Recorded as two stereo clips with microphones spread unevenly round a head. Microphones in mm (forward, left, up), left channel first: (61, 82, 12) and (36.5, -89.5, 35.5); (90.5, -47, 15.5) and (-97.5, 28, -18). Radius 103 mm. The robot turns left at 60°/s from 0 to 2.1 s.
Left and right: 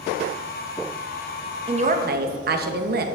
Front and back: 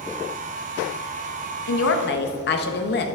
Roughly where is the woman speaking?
Ahead right.